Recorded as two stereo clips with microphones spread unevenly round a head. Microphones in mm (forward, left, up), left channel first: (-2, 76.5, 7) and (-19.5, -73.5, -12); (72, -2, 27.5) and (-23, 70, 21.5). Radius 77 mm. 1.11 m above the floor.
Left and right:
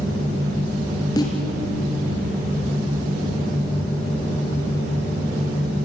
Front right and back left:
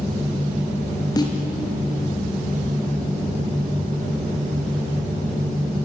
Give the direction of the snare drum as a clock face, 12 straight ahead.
11 o'clock.